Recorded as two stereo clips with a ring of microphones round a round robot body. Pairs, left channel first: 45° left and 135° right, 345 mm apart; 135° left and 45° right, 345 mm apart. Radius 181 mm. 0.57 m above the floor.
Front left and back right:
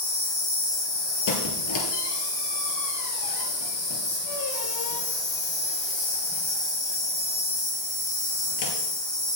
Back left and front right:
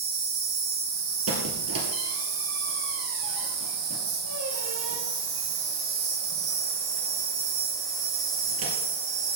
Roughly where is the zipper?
No zipper in this recording.